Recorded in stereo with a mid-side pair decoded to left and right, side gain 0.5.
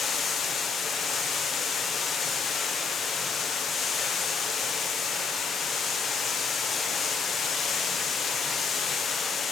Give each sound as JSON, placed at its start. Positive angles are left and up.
{"t": 0.0, "sound": "running water", "azimuth_deg": 40, "distance_m": 0.8}